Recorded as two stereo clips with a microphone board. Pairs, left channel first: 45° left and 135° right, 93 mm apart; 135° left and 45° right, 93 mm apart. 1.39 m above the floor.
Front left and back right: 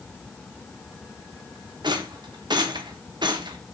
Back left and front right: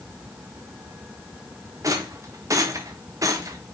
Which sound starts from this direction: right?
A rattle, at 1.8 s.